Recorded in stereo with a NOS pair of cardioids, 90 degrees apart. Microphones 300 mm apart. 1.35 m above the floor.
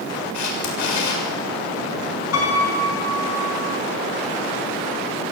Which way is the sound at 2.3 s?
55° left.